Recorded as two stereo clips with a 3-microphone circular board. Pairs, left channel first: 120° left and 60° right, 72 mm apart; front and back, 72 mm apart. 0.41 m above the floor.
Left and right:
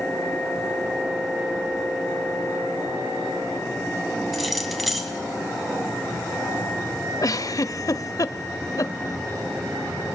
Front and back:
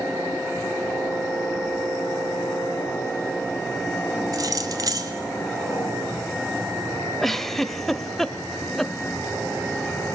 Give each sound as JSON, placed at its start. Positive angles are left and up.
{"t": 4.3, "sound": "keys jangling", "azimuth_deg": -150, "distance_m": 1.8}
{"t": 7.2, "sound": "a giggle", "azimuth_deg": 90, "distance_m": 0.7}